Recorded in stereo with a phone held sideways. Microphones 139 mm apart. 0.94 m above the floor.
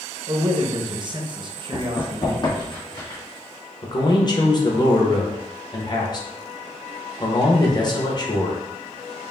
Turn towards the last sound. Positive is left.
turn(degrees=35)  # may be behind; listen again after turning